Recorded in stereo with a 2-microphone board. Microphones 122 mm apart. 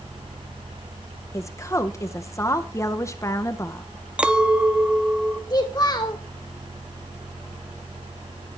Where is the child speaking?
35° left (ahead or behind), 1.7 m.